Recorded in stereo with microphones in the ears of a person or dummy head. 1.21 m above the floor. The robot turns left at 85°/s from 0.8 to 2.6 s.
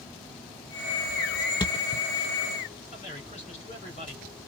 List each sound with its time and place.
1.6 s a thud: 20° left (ahead or behind), 0.6 m; by 2.0 s 40° left (ahead or behind), 0.6 m
2.9 s a man speaking: 40° left (ahead or behind), 3 m